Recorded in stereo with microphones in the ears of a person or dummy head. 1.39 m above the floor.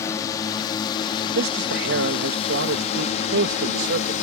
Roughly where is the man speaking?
Right.